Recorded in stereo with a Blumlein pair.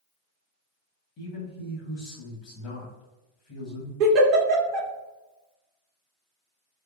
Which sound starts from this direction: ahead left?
A man speaking, at 1.2 s.